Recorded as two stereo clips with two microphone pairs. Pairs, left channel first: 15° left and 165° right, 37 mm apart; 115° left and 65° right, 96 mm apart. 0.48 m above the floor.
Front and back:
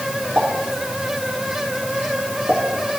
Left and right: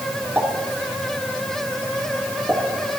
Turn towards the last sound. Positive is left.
turn(degrees=-135)